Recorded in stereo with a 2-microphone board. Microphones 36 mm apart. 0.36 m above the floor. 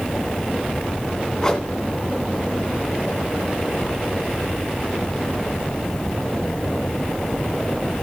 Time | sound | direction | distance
1.4 | a whoosh | 15° left (ahead or behind) | 1.2 m